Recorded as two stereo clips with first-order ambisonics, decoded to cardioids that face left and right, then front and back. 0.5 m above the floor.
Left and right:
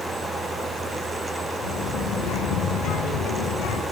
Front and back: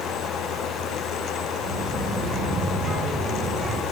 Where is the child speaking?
110° left, 7 m.